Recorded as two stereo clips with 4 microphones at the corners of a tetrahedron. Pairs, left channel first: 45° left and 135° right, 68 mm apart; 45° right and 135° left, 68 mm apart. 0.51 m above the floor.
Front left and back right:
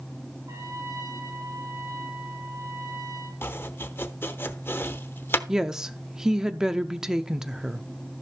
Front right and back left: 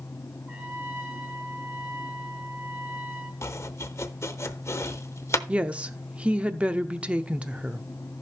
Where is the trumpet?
165° right, 5.5 m.